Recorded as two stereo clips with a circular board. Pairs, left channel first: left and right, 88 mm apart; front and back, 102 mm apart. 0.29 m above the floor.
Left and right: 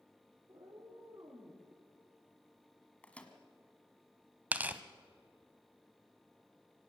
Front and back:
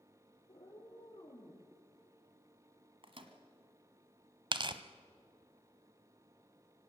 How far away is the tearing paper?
About 0.8 m.